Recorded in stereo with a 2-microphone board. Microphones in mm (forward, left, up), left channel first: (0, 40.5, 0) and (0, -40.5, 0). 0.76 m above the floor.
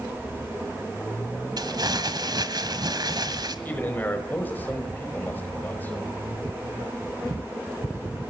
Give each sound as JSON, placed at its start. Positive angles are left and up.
{"t": 1.6, "sound": "crumpling", "side_deg": -60, "distance_m": 1.7}
{"t": 3.6, "sound": "a man speaking", "side_deg": 20, "distance_m": 4.5}